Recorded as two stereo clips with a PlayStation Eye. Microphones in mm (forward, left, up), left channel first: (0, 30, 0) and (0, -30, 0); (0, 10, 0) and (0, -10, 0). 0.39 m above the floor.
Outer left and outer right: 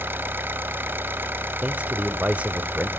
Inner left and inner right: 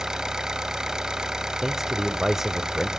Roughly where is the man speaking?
Right.